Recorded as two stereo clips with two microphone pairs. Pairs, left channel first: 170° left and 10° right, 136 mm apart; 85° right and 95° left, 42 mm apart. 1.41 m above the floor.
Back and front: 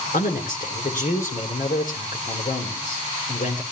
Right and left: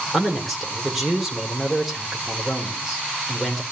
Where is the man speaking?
Straight behind, 4 m.